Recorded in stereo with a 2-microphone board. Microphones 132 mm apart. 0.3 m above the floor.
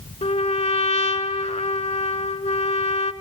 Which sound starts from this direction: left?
A trumpet, at 0.2 s.